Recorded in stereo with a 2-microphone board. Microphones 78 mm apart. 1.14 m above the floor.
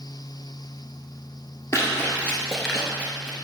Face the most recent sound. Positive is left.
turn(degrees=-30)  # may be behind; listen again after turning